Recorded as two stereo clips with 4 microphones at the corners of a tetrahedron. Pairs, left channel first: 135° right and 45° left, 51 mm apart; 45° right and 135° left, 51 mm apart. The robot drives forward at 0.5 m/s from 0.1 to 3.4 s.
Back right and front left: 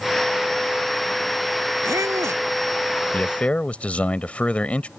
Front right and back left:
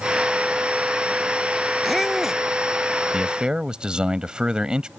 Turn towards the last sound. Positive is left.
turn(degrees=-170)